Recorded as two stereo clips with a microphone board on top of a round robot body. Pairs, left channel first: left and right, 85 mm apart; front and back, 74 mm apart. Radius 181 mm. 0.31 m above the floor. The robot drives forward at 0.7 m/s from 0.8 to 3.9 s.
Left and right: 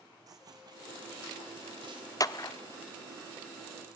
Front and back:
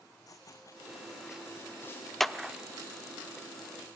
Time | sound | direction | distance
0.3 | running footsteps | 45° right | 1.4 m
2.2 | a clap | 85° left | 1.0 m